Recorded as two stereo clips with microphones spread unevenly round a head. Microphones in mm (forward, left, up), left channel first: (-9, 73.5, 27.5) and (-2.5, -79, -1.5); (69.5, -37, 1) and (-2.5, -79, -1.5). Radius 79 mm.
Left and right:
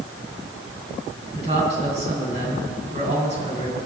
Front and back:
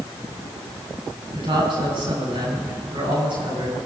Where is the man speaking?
135° right, 8.5 m.